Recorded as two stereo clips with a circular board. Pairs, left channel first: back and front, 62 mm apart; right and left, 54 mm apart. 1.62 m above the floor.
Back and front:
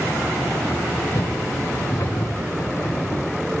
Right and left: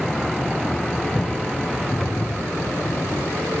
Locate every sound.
1.1 s footsteps: 175° right; by 3.2 s 170° right